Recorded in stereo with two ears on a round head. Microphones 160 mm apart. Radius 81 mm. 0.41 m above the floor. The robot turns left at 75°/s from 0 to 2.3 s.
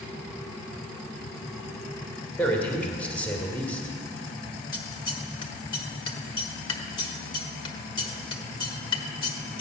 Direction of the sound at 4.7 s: 25° left (ahead or behind).